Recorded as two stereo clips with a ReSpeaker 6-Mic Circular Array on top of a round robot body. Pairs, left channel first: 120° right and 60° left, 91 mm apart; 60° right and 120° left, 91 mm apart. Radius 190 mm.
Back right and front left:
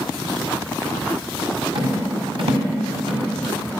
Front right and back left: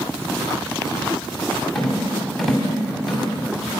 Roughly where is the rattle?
Ahead left.